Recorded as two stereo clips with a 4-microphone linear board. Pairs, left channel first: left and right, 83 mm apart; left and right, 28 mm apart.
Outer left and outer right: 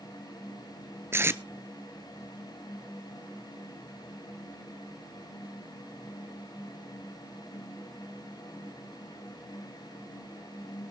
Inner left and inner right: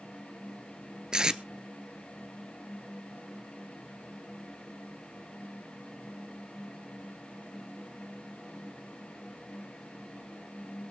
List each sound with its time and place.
1.1 s tape being pulled: 30° right (ahead or behind), 0.7 m